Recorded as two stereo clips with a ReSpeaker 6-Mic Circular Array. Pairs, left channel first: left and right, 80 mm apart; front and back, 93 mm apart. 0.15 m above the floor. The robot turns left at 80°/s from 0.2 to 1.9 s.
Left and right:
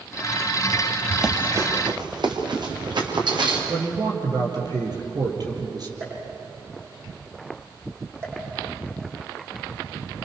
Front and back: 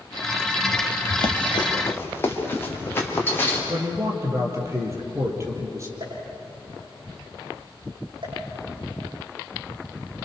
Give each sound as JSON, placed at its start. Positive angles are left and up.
{"t": 1.1, "sound": "running footsteps", "azimuth_deg": 5, "distance_m": 3.0}
{"t": 3.7, "sound": "a man speaking", "azimuth_deg": -120, "distance_m": 5.0}
{"t": 6.0, "sound": "a pop", "azimuth_deg": -150, "distance_m": 9.5}